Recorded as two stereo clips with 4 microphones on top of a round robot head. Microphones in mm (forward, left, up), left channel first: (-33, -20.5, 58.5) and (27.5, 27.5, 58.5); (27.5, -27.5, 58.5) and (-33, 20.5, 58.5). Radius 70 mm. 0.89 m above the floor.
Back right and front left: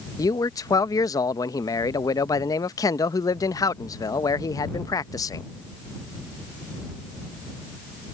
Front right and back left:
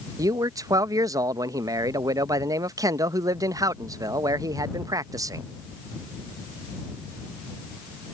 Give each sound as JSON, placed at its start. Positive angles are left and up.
{"t": 0.2, "sound": "a man speaking", "azimuth_deg": 180}